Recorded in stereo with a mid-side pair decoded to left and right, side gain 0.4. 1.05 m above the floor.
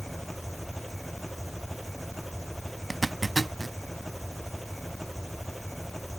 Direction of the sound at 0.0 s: 5° left.